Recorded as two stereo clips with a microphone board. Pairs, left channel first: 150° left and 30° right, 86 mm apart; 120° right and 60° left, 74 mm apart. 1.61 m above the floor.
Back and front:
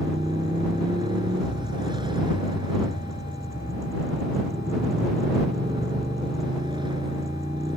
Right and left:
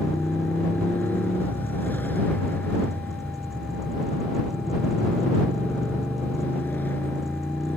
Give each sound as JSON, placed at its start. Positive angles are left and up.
{"t": 0.0, "sound": "a motorcycle", "azimuth_deg": -55}